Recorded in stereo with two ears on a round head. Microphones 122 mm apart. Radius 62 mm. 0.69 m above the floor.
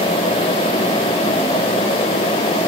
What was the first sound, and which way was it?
Only background noise.